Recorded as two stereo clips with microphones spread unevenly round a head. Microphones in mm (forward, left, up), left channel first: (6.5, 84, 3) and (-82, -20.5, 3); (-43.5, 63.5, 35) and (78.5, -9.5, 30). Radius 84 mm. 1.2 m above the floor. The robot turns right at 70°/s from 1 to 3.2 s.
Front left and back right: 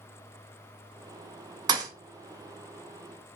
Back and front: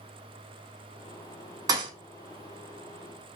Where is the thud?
90° right, 0.5 m; by 1.9 s 75° right, 0.5 m.